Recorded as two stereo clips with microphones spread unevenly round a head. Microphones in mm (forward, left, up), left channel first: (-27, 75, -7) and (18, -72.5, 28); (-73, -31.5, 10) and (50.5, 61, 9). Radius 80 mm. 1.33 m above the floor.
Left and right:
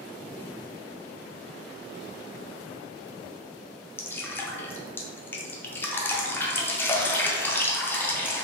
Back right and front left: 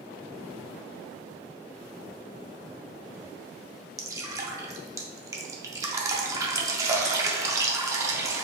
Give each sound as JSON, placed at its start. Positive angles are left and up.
{"t": 4.0, "sound": "dripping", "azimuth_deg": 80, "distance_m": 0.5}